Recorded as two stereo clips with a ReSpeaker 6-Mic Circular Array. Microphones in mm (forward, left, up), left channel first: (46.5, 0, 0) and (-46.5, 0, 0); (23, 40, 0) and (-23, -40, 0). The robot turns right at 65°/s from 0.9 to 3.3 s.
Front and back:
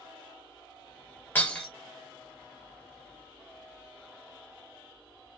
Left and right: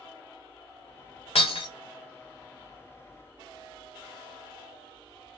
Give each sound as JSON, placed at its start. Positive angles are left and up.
{"t": 1.4, "sound": "breaking glass", "azimuth_deg": 70, "distance_m": 1.1}